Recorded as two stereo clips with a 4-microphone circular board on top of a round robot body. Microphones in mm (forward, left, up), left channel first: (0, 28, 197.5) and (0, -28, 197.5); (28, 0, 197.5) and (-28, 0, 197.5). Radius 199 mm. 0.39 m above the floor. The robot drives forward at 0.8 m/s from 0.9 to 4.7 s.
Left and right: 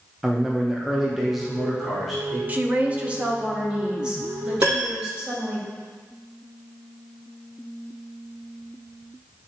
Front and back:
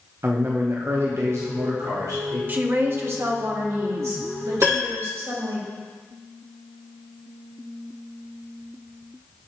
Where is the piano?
135° right, 3.5 m.